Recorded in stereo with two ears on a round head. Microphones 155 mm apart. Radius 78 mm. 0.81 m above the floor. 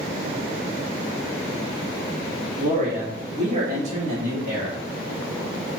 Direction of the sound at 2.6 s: 40° right (ahead or behind).